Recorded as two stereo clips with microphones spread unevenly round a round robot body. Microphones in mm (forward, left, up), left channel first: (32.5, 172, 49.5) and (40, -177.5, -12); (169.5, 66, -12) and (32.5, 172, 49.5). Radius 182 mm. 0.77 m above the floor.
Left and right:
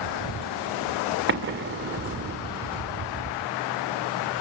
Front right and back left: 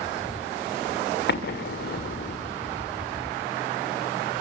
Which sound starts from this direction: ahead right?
An explosion, at 1.3 s.